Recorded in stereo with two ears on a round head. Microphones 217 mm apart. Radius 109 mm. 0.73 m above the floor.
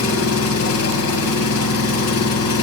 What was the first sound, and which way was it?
An engine running, 70° left (ahead or behind).